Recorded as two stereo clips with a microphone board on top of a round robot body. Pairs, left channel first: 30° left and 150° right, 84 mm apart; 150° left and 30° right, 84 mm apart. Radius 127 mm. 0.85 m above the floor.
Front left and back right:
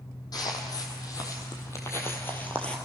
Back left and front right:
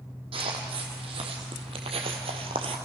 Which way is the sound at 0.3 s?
15° right.